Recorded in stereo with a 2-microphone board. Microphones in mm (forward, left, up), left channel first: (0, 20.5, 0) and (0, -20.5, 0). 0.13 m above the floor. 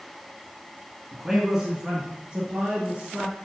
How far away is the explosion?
I don't hear an explosion.